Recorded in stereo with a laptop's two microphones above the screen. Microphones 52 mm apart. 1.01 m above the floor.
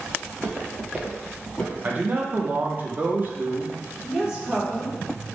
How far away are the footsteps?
About 1.7 m.